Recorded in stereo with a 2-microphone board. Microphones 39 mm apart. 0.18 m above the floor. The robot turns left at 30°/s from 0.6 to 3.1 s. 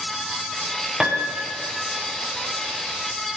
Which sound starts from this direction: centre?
A piano, at 1.0 s.